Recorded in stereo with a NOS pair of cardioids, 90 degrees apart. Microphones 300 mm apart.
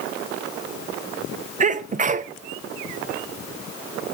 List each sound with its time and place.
1.6 s a sneeze: 25° right, 0.8 m